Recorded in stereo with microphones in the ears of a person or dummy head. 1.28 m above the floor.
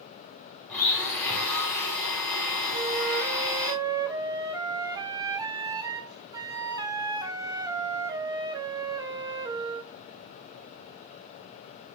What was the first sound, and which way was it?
A blender, 5° left (ahead or behind).